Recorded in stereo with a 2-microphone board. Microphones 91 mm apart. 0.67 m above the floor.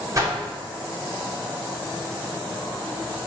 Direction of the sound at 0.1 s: 35° right (ahead or behind).